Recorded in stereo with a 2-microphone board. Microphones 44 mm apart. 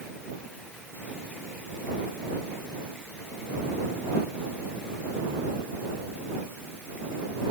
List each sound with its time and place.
Only background noise.